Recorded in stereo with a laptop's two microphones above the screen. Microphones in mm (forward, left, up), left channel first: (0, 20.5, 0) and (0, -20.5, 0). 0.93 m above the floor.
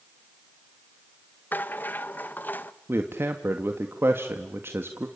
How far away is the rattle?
About 0.9 m.